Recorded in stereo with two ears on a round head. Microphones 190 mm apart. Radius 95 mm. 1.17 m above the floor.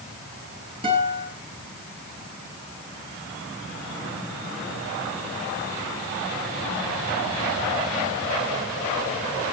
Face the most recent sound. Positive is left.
turn(degrees=-30)  # may be behind; listen again after turning